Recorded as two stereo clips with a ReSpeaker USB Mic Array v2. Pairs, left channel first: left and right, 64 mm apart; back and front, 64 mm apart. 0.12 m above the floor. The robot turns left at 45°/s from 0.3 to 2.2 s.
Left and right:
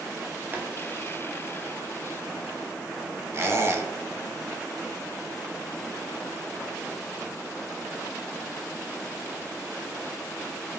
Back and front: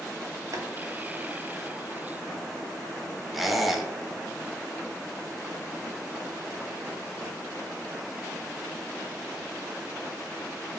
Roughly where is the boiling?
Ahead right.